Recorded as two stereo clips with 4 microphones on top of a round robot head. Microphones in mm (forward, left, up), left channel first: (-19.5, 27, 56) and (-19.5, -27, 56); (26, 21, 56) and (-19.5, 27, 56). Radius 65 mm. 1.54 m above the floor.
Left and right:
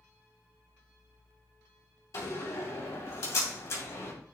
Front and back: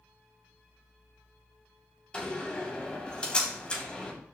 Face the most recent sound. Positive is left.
turn(degrees=60)